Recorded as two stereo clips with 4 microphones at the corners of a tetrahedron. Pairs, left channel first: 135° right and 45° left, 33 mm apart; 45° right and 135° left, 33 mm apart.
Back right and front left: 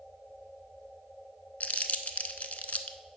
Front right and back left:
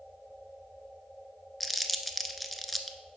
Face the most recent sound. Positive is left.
turn(degrees=-135)